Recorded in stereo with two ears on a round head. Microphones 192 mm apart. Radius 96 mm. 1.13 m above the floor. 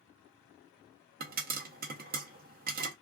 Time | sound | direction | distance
1.2 | a pop | 40° right (ahead or behind) | 0.6 m